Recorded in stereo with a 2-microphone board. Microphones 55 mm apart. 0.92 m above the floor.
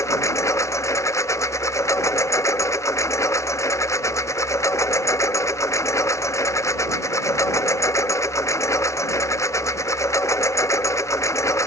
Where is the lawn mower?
65° left (ahead or behind).